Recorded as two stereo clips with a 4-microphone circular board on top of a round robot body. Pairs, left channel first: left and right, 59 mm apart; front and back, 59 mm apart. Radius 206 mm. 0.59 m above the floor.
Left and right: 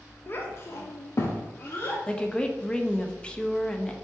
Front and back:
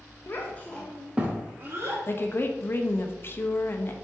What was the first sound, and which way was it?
A child speaking, 40° left.